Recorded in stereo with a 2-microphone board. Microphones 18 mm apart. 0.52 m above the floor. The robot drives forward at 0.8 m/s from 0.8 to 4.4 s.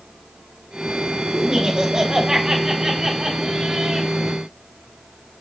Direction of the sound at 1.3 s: 40° right (ahead or behind).